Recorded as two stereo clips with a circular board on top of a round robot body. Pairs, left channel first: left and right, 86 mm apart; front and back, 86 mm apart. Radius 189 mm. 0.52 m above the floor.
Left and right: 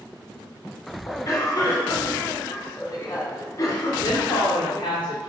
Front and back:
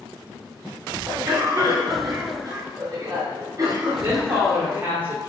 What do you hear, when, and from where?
1.1 s a cough: 125° left, 2.5 m
4.0 s a woman speaking: 110° left, 2 m